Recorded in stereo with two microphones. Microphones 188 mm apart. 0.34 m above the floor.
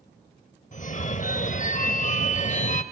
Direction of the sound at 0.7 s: 40° left (ahead or behind).